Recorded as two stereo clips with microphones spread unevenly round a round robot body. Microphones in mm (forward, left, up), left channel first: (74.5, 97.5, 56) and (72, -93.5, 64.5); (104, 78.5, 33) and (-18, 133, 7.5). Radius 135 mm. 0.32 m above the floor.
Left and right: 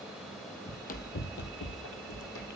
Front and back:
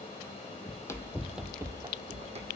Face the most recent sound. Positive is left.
turn(degrees=115)